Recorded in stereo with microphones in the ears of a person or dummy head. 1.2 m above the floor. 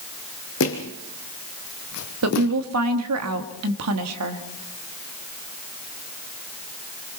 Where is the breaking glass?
I don't hear breaking glass.